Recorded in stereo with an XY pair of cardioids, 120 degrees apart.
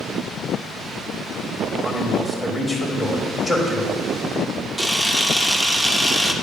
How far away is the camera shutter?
About 1.0 m.